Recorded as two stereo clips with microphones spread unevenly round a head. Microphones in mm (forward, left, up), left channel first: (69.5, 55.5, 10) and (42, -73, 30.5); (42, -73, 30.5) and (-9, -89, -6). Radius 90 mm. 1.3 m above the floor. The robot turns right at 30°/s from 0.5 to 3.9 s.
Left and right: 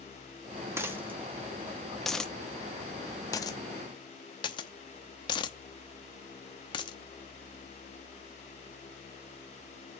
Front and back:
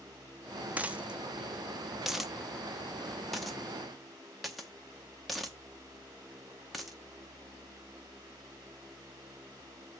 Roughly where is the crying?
No crying in this recording.